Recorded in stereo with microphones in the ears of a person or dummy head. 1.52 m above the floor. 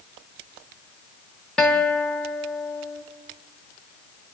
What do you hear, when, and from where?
1.6 s a guitar: 10° left (ahead or behind), 1.3 m